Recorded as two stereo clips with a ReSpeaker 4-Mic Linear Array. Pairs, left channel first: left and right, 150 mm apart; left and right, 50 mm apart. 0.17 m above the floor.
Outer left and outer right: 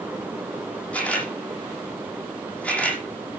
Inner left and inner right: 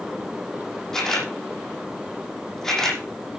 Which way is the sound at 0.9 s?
10° left (ahead or behind).